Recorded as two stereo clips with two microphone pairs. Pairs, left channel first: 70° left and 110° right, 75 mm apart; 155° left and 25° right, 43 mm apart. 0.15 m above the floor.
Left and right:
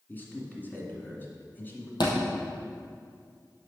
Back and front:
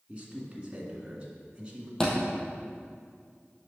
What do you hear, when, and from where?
0.1 s a man speaking: 25° left, 1.9 m
2.0 s a thud: 80° left, 2.5 m